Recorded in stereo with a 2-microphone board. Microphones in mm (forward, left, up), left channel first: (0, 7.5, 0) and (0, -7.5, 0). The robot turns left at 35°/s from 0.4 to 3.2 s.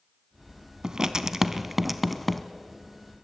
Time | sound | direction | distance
0.8 | writing | 40° right (ahead or behind) | 1.0 m